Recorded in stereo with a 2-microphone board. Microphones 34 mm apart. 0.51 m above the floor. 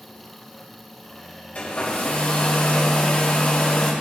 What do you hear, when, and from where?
1.6 s a hair dryer: 40° left (ahead or behind), 1.9 m